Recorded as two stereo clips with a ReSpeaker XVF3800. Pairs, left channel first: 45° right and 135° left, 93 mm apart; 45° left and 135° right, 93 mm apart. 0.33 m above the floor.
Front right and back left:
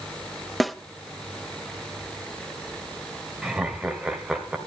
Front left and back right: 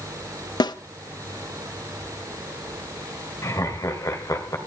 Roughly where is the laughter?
Ahead left.